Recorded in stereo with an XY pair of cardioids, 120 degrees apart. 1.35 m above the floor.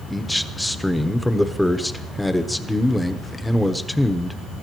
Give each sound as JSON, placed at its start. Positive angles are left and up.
{"t": 0.1, "sound": "a man speaking", "azimuth_deg": 5, "distance_m": 1.0}